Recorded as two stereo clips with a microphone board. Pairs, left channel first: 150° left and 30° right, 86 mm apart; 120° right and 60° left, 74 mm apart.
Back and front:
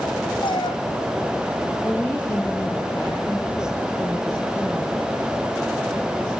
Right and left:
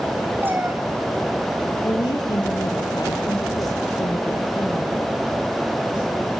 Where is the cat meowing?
125° left, 2 m.